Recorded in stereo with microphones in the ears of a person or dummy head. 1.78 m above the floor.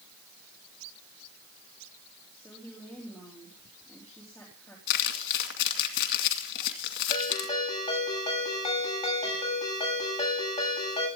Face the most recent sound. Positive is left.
turn(degrees=30)  # may be behind; listen again after turning